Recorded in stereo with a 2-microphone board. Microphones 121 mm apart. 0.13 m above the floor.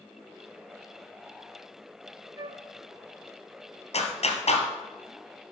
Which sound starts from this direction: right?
A flute, at 2.4 s.